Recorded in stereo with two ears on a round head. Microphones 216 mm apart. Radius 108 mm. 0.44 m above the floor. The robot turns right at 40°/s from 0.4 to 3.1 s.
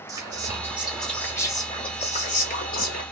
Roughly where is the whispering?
Ahead.